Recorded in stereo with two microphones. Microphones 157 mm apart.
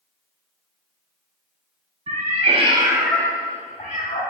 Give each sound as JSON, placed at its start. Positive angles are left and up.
{"t": 2.1, "sound": "a cat meowing", "side_deg": -55, "distance_m": 0.9}